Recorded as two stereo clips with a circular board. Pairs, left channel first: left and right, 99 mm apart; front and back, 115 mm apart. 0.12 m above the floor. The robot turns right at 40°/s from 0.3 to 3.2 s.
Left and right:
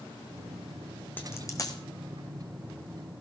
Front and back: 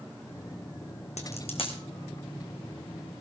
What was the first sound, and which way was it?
A dropped coin, 20° left.